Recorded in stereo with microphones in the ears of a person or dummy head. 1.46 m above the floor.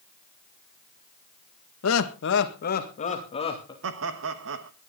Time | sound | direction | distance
1.8 | laughter | 90° left | 1.8 m
3.8 | laughter | 75° right (ahead or behind) | 1.3 m